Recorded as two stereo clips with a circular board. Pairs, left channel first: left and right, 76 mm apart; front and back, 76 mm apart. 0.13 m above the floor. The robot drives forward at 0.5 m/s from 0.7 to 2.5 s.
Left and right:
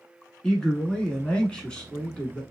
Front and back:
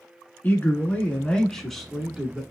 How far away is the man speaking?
About 1.3 m.